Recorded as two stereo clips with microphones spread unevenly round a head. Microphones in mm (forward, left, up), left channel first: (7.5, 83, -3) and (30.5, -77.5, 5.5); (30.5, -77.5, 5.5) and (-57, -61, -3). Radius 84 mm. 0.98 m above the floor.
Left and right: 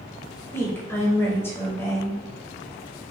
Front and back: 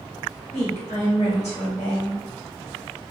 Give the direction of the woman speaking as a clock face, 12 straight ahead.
11 o'clock.